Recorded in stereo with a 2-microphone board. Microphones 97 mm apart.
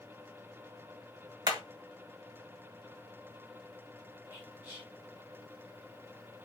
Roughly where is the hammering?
Right.